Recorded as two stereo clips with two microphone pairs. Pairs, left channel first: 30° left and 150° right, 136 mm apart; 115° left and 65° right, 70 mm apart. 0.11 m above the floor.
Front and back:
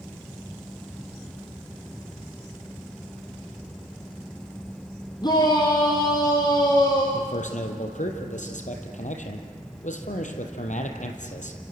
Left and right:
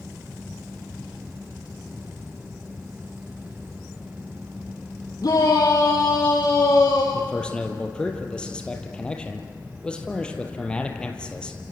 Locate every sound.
5.2 s a shout: 85° left, 4 m
7.1 s a man speaking: 40° left, 3 m